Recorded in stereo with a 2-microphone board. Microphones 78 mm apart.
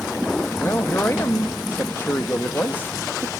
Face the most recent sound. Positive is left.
turn(degrees=30)  # may be behind; listen again after turning